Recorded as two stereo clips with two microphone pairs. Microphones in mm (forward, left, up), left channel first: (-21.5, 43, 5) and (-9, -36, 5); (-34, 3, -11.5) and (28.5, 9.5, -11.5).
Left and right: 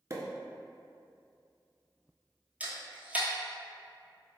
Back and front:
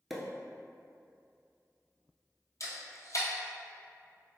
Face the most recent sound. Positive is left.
turn(degrees=-155)